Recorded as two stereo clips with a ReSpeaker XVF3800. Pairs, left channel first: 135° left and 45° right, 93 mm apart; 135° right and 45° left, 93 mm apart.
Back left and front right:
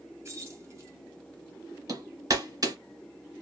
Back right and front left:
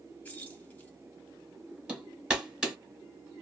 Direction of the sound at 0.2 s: 75° right.